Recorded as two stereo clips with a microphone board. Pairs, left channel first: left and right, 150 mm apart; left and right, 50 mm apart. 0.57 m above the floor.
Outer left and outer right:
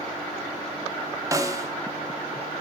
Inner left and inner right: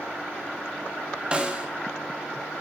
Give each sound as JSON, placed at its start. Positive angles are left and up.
{"t": 1.3, "sound": "a snare drum", "side_deg": -25, "distance_m": 0.8}